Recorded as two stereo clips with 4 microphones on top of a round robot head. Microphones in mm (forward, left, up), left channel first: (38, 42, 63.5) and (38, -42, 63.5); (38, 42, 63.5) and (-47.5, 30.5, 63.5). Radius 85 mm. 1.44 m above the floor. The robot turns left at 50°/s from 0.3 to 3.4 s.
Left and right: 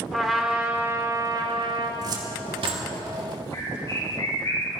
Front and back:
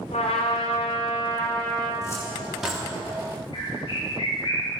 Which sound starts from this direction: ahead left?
A bird, at 3.5 s.